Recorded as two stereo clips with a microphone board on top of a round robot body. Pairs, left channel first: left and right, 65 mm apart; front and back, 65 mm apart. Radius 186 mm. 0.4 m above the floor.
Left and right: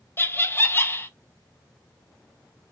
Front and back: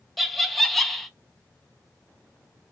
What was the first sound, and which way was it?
Laughter, 90° left.